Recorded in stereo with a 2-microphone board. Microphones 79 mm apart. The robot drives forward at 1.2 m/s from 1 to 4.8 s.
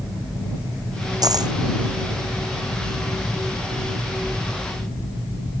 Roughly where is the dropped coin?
Right.